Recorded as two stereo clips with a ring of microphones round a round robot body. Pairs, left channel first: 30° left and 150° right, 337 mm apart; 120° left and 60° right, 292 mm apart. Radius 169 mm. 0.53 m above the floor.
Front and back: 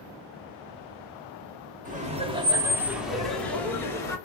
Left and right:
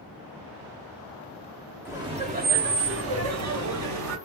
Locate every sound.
1.9 s laughter: 130° right, 0.9 m; by 4.2 s 50° right, 1.6 m